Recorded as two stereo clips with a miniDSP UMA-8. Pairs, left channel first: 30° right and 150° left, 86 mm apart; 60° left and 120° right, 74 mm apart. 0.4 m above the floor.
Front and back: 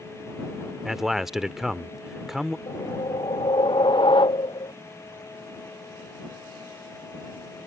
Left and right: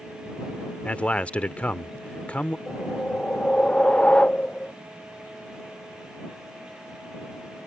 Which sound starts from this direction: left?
A man speaking, at 0.8 s.